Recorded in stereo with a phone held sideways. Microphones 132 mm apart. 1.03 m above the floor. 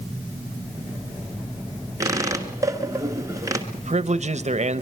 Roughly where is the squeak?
Right.